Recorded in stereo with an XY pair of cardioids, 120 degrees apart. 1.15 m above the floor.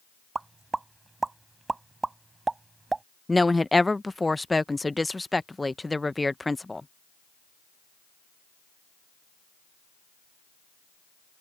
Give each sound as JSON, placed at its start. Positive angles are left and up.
{"t": 0.3, "sound": "a pop", "azimuth_deg": -20}
{"t": 3.3, "sound": "a woman speaking", "azimuth_deg": 10}